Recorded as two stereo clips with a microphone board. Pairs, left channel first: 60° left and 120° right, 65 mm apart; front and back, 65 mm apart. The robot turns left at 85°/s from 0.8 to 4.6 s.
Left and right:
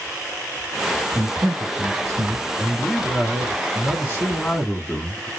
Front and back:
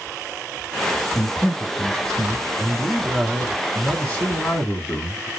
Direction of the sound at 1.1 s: 70° right.